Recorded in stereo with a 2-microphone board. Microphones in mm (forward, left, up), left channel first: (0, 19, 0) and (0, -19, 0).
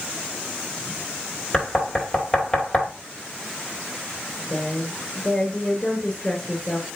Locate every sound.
1.5 s knocking: 15° left (ahead or behind), 2.5 m
4.5 s a woman speaking: centre (ahead or behind), 2 m